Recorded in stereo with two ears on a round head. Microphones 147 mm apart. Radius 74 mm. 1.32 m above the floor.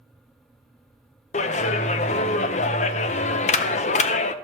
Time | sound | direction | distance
1.3 | a clap | 40° left (ahead or behind) | 0.5 m